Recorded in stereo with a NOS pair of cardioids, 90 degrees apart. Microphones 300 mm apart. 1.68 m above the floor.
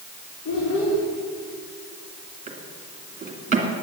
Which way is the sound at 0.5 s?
55° left.